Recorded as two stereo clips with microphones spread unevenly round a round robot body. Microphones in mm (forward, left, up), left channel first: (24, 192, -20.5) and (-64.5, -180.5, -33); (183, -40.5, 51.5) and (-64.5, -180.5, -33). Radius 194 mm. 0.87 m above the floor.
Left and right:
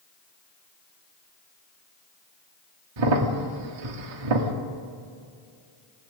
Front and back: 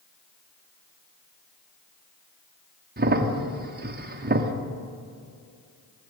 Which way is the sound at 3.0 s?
105° right.